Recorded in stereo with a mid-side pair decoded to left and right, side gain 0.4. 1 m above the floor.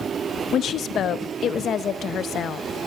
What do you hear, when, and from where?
0.5 s a woman speaking: 65° left, 0.7 m